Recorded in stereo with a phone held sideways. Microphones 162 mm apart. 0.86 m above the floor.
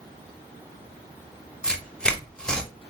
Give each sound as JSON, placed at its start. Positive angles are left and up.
{"t": 1.6, "sound": "tearing paper", "side_deg": 5, "distance_m": 0.6}